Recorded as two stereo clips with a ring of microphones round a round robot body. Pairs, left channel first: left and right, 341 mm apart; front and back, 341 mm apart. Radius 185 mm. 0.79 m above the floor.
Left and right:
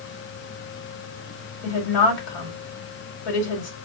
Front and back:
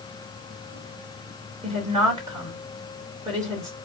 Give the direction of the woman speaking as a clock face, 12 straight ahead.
9 o'clock.